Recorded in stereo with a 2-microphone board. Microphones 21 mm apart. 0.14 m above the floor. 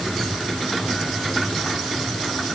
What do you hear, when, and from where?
Only background noise.